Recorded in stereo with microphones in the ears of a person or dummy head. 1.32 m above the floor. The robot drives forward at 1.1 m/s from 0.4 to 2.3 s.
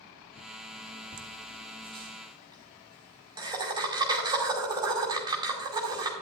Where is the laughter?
40° right (ahead or behind), 1.2 m; by 6.1 s 20° right (ahead or behind), 2.5 m.